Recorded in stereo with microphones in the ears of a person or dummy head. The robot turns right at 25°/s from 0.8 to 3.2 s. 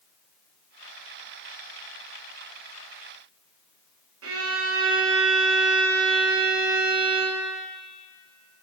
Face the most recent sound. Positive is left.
turn(degrees=-75)  # may be behind; listen again after turning